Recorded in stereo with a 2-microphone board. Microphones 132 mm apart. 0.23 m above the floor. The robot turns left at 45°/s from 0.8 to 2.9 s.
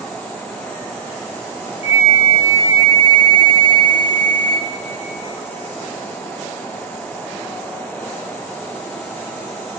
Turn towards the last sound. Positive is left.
turn(degrees=40)